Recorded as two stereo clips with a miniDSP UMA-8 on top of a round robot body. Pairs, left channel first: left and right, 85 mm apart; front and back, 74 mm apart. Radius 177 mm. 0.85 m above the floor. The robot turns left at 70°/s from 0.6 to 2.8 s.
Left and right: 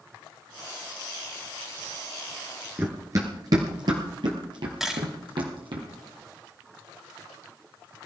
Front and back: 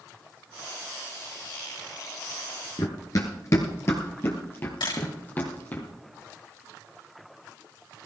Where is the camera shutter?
5° right, 3 m.